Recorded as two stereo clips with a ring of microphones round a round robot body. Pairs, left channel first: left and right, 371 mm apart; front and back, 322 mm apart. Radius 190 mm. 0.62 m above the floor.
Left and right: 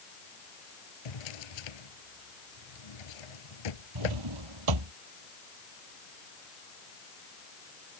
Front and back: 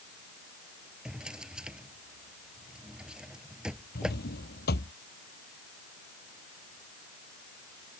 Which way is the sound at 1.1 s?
95° left.